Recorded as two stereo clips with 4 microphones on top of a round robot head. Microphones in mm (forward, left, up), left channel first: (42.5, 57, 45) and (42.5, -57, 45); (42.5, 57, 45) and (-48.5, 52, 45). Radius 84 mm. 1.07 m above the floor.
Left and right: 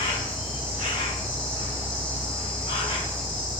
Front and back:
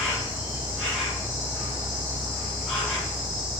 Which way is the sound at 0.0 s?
105° left.